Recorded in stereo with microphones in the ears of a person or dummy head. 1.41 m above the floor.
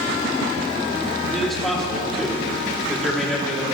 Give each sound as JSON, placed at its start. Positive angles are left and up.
{"t": 1.3, "sound": "a man speaking", "side_deg": 5, "distance_m": 4.0}